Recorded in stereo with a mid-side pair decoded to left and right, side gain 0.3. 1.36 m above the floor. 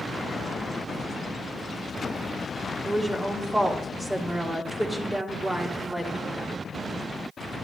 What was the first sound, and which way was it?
A woman speaking, 25° right.